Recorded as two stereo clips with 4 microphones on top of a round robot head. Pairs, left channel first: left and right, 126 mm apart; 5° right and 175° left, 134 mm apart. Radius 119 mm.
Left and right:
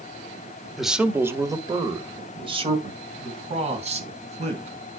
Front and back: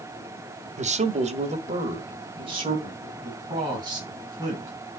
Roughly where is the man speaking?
Behind.